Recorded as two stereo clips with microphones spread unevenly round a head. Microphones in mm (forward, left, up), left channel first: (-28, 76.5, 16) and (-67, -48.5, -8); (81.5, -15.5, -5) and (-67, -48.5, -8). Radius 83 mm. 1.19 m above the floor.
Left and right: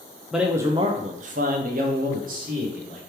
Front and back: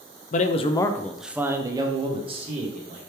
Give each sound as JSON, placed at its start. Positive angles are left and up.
{"t": 0.3, "sound": "a man speaking", "azimuth_deg": -25, "distance_m": 0.5}